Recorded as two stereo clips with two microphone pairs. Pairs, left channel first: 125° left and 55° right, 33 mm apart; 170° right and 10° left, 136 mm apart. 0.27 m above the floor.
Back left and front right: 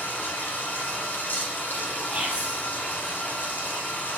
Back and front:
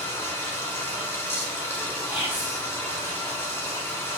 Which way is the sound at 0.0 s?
115° left.